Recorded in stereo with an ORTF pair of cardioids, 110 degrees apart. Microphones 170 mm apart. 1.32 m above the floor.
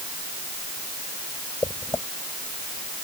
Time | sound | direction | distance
1.6 | footsteps | 15° left | ?